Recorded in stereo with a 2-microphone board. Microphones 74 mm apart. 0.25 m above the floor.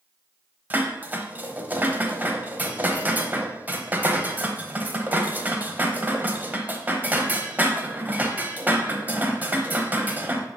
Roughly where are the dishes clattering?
Right.